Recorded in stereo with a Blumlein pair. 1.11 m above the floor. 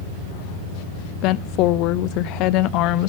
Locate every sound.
1.2 s a woman speaking: 40° left, 0.6 m